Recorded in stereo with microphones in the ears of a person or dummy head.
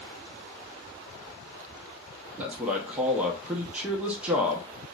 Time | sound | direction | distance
2.4 | a man speaking | 10° right (ahead or behind) | 0.6 m